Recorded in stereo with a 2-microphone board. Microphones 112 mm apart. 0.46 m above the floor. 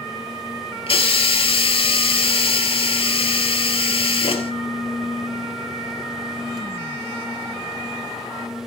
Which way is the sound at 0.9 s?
60° left (ahead or behind).